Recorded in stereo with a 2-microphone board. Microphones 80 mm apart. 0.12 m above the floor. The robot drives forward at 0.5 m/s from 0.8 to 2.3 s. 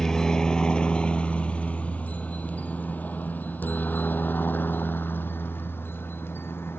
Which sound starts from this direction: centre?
A helicopter, at 0.0 s.